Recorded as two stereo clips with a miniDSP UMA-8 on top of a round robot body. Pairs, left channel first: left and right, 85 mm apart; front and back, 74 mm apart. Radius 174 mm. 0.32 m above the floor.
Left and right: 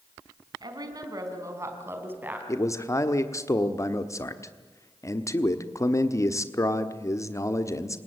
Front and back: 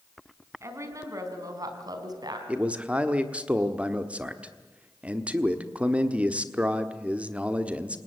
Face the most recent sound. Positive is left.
turn(degrees=115)